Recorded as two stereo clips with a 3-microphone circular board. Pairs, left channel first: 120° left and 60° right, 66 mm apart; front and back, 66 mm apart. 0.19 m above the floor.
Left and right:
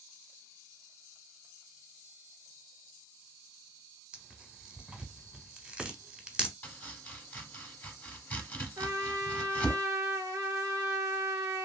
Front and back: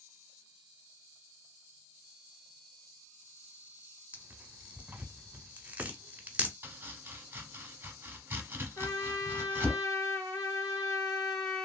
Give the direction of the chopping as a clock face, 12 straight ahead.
7 o'clock.